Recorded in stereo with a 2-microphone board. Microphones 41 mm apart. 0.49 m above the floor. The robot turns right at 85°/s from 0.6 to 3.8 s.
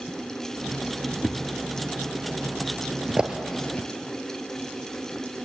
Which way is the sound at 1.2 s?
5° left (ahead or behind).